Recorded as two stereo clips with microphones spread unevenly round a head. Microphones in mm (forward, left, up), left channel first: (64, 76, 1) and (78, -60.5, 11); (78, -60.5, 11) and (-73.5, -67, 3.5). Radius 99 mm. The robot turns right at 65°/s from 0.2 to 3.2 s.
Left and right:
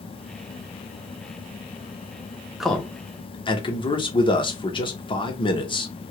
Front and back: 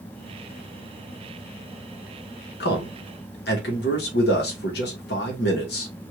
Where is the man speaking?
Straight ahead, 1.2 m; by 5.9 s 40° left, 1.2 m.